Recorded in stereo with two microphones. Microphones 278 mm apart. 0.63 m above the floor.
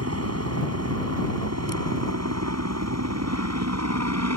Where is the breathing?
I don't hear breathing.